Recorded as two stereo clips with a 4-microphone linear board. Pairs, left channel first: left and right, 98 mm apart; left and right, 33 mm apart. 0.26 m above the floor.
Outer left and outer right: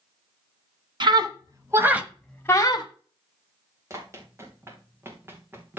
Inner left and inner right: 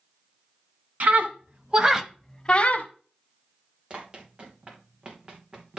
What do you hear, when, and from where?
1.0 s a scream: 50° right (ahead or behind), 2 m; by 2.9 s 45° left (ahead or behind), 1.5 m
3.9 s running footsteps: 30° right (ahead or behind), 3.5 m; by 5.8 s 20° right (ahead or behind), 3 m